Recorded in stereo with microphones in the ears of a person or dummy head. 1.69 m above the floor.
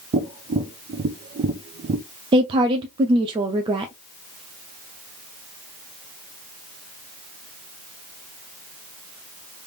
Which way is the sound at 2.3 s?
25° right (ahead or behind).